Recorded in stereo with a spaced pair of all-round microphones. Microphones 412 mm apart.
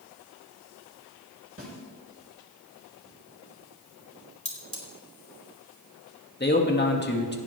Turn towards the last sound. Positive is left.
turn(degrees=25)  # may be behind; listen again after turning